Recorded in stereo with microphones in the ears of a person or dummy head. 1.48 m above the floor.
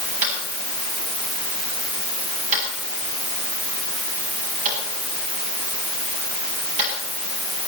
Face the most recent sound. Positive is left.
turn(degrees=-40)  # may be behind; listen again after turning